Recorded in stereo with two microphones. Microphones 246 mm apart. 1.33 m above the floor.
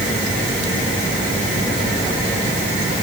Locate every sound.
Only background noise.